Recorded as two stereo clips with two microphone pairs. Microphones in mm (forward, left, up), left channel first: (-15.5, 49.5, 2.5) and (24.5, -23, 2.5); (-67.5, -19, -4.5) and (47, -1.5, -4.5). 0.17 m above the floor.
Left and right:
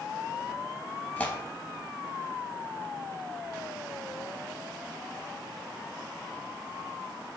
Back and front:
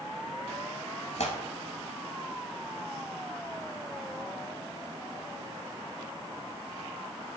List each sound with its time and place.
1.2 s tearing paper: 170° right, 0.7 m